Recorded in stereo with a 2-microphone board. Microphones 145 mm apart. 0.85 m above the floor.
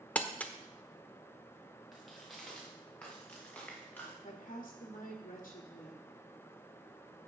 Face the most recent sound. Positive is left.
turn(degrees=65)  # may be behind; listen again after turning